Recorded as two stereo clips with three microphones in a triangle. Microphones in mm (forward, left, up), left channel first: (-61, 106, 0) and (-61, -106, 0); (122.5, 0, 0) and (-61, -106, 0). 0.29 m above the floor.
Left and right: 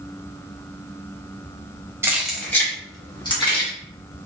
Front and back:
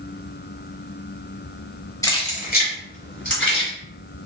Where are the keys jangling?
25° right, 0.9 m; by 3.7 s 30° left, 2 m.